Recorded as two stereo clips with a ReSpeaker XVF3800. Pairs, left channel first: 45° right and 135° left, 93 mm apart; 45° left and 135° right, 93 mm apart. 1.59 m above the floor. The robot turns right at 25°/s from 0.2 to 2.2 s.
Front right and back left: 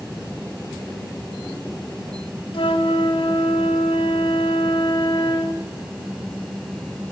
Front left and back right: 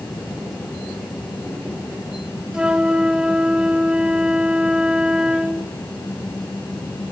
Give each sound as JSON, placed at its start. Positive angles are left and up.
{"t": 2.5, "sound": "a flute", "azimuth_deg": -55, "distance_m": 2.0}